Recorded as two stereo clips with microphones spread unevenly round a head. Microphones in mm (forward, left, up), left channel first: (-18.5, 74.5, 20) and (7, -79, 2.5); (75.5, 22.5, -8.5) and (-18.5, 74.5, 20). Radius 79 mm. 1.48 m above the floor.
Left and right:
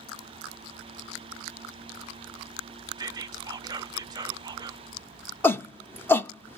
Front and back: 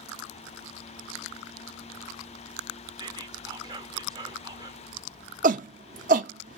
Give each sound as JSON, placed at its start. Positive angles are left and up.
{"t": 3.0, "sound": "whispering", "azimuth_deg": -140, "distance_m": 0.5}
{"t": 5.4, "sound": "a shout", "azimuth_deg": 175, "distance_m": 0.6}